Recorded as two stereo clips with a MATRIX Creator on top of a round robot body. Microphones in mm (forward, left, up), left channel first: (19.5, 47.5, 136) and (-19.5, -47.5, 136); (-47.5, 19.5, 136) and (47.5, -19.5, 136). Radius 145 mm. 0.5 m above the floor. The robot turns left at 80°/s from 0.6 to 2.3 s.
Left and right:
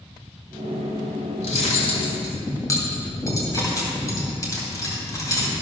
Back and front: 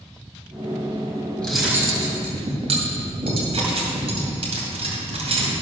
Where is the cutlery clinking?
80° left, 2.5 m; by 5.5 s 5° left, 2.5 m.